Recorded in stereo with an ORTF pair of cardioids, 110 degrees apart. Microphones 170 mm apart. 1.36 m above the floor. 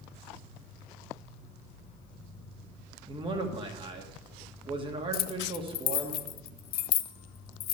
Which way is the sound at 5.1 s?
65° left.